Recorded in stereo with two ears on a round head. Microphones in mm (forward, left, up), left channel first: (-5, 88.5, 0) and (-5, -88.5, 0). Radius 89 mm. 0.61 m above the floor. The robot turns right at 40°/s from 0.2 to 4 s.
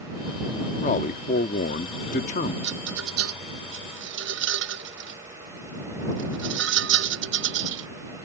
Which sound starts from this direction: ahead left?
A man speaking, at 0.8 s.